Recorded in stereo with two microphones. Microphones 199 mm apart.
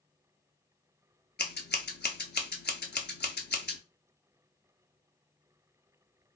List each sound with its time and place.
1.4 s scissors: 55° left (ahead or behind), 0.5 m